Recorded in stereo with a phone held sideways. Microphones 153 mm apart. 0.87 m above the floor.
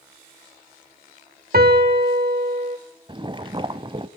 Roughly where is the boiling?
Right.